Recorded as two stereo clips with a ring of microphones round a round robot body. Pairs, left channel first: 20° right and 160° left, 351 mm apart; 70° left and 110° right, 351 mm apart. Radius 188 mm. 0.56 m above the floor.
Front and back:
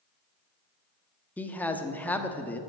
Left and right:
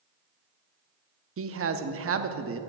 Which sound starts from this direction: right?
A man speaking, at 1.4 s.